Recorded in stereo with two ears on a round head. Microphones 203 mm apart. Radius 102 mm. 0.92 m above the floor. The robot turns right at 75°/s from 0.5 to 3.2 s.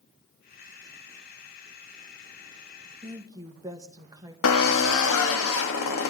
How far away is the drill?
About 1.5 m.